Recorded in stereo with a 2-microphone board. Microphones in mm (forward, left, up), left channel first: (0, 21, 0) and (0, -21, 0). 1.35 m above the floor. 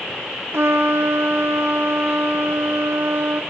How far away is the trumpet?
About 0.6 m.